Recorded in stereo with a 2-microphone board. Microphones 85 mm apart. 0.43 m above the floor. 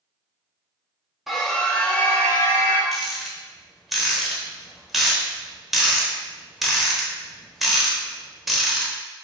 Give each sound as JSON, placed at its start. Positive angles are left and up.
{"t": 1.3, "sound": "a scream", "side_deg": 0, "distance_m": 0.8}
{"t": 2.9, "sound": "a rattle", "side_deg": 0, "distance_m": 0.9}